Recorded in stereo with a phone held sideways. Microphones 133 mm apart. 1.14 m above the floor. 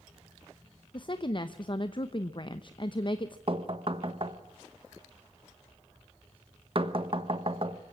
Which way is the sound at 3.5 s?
45° right (ahead or behind).